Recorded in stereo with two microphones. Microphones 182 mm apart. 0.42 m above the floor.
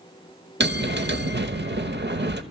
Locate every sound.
0.6 s a bell: 70° right (ahead or behind), 0.7 m